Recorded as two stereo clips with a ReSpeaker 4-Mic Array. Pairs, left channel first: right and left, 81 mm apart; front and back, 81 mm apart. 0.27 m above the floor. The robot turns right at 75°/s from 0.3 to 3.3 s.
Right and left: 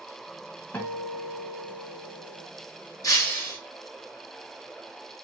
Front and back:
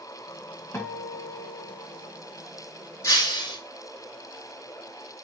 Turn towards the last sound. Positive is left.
turn(degrees=-25)